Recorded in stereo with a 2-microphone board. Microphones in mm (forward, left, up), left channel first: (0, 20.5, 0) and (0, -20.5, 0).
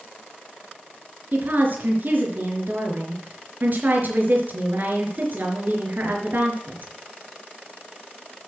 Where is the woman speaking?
45° right (ahead or behind), 4 m.